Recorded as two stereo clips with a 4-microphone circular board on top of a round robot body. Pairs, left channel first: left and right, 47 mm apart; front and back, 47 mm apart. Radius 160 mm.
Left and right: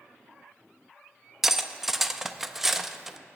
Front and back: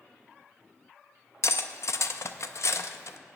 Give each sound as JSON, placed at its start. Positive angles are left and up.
{"t": 1.4, "sound": "cutlery clinking", "azimuth_deg": -5, "distance_m": 0.6}